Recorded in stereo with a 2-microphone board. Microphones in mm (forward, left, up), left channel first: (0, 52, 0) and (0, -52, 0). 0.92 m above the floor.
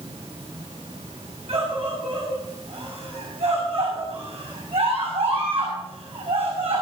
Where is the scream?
85° right, 6.5 m.